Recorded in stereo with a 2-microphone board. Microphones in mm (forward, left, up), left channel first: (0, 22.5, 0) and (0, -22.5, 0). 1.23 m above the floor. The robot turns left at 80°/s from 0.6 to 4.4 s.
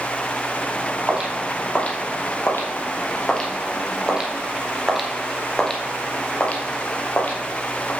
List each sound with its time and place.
1.1 s footsteps: 25° right (ahead or behind), 2.5 m; by 7.9 s 45° left (ahead or behind), 2 m